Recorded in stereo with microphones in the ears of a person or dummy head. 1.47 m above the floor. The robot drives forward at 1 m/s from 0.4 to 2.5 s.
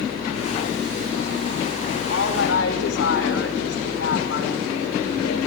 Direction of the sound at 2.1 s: 75° left (ahead or behind).